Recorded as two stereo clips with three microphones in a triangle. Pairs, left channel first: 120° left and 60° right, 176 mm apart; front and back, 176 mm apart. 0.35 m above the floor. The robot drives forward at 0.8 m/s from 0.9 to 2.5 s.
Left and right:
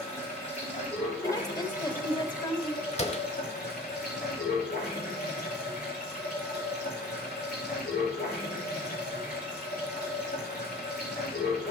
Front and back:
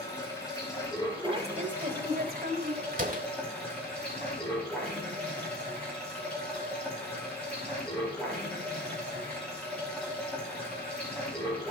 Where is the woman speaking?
170° left, 1.0 m; by 2.8 s 175° left, 1.7 m.